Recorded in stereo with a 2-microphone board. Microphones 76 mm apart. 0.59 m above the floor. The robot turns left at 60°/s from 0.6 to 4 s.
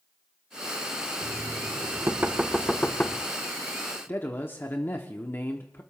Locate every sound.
1.2 s knocking: 95° right, 0.9 m; by 3.3 s 145° left, 0.9 m
4.1 s a man speaking: 30° left (ahead or behind), 1.2 m